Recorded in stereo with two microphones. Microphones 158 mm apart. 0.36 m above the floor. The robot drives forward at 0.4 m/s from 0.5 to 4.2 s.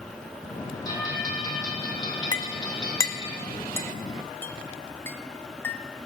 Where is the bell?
25° left (ahead or behind), 4 m; by 3.3 s 30° left (ahead or behind), 3 m.